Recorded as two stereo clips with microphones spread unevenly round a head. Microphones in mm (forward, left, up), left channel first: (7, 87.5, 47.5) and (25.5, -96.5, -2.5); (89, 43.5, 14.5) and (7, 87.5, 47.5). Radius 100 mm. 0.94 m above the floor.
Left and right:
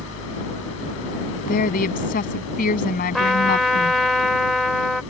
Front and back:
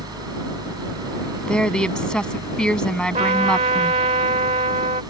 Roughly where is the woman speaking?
Ahead left.